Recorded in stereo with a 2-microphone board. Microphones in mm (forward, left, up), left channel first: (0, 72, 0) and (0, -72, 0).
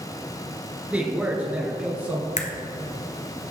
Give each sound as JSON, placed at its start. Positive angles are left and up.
{"t": 0.9, "sound": "a man speaking", "side_deg": -10, "distance_m": 1.8}
{"t": 2.4, "sound": "a crack", "side_deg": 55, "distance_m": 1.1}